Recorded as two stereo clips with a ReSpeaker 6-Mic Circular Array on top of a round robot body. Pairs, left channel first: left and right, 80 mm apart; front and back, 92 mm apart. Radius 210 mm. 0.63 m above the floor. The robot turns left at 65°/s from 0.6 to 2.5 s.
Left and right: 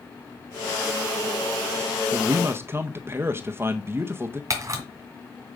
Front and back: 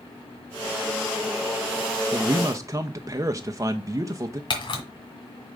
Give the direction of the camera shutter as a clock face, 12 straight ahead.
1 o'clock.